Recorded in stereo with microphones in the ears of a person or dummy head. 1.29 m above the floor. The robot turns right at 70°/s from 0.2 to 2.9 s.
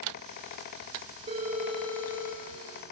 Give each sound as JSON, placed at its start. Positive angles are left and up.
{"t": 1.3, "sound": "a phone ringing", "azimuth_deg": -35, "distance_m": 1.5}